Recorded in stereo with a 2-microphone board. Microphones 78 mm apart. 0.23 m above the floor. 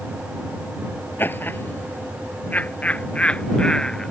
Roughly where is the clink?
No clink in this recording.